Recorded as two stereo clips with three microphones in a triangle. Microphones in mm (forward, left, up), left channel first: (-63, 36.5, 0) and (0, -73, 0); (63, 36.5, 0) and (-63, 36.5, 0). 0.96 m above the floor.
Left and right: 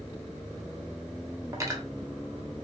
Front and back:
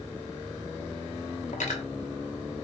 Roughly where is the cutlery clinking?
Ahead.